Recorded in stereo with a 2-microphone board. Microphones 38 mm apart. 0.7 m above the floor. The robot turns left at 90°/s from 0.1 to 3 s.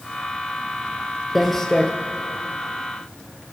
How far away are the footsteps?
About 0.7 m.